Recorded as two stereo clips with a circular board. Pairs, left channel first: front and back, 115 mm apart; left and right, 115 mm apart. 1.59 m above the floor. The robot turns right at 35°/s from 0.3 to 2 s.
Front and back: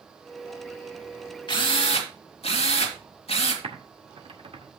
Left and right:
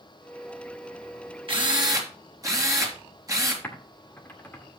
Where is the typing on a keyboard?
160° left, 2 m.